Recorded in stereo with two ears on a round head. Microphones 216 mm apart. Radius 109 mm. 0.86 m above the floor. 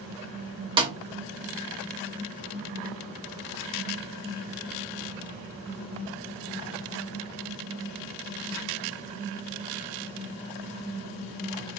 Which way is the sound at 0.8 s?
20° right (ahead or behind).